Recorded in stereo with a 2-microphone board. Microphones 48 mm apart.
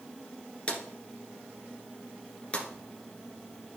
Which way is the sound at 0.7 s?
25° left (ahead or behind).